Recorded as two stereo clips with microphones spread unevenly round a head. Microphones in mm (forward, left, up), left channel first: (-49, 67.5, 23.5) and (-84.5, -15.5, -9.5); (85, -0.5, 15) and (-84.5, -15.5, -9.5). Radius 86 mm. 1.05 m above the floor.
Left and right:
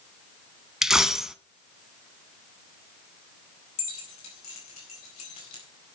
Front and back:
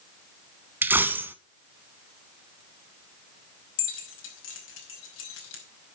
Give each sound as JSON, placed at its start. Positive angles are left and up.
{"t": 0.8, "sound": "a dropped coin", "azimuth_deg": 105, "distance_m": 0.9}
{"t": 3.8, "sound": "keys jangling", "azimuth_deg": 25, "distance_m": 5.0}